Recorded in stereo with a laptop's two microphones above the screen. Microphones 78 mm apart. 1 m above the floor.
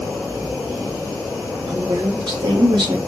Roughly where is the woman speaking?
Right.